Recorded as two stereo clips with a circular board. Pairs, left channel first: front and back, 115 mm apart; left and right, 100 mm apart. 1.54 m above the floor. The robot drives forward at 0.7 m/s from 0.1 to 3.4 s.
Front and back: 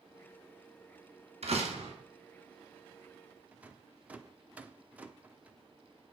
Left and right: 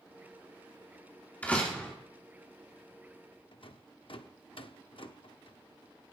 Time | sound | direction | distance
1.4 | a door slam | 165° left | 2.5 m
3.5 | a rattle | 105° left | 0.8 m